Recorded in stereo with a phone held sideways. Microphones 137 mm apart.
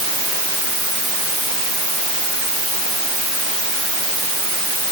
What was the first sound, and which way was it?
Only background noise.